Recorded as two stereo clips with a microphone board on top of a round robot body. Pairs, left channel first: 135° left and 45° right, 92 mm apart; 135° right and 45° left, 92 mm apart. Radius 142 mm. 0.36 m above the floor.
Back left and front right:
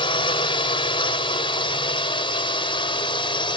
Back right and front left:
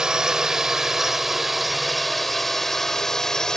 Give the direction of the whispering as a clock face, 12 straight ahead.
No whispering in this recording.